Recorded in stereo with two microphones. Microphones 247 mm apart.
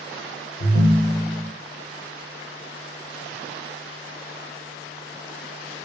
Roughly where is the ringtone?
Left.